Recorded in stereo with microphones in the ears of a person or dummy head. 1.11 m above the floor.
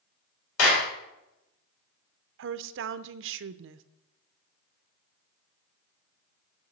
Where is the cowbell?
No cowbell in this recording.